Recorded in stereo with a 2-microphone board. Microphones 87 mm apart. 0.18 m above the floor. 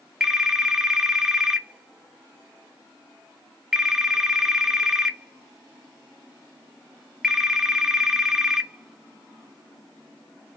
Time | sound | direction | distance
0.2 | a phone ringing | 5° right (ahead or behind) | 0.9 m